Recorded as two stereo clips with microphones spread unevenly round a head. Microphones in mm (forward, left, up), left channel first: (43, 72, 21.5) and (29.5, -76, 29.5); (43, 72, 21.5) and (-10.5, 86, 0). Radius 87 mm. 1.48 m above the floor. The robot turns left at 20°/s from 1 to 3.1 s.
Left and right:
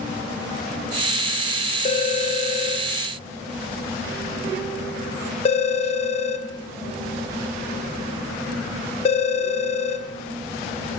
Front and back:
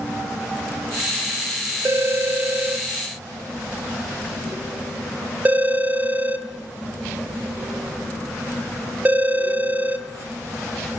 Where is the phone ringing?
120° left, 0.7 m; by 10.1 s 95° left, 0.7 m.